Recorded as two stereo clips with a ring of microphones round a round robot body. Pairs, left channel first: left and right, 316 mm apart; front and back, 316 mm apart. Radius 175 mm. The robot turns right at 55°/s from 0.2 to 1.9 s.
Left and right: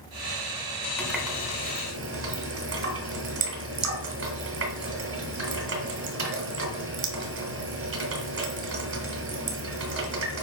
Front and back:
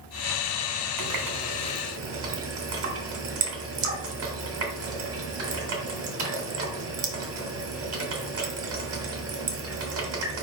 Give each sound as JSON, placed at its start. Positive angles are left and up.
{"t": 1.0, "sound": "a running tap", "azimuth_deg": 175, "distance_m": 2.5}